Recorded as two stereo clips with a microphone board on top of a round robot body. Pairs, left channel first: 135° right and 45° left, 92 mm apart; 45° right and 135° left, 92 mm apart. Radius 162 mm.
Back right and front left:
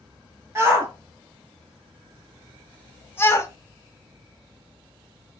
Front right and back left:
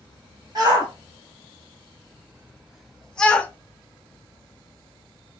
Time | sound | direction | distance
0.6 | a shout | 100° left | 1.5 m